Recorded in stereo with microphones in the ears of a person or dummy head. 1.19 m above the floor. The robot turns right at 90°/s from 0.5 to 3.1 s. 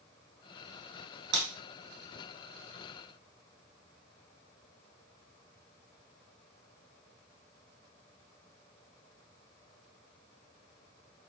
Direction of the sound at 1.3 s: 65° right (ahead or behind).